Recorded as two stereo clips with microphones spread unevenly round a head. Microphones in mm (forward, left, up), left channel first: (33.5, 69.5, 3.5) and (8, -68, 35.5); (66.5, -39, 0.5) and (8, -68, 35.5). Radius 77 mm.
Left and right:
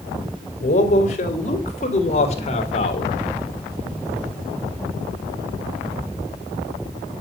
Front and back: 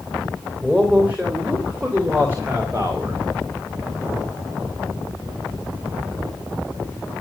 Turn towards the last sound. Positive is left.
turn(degrees=130)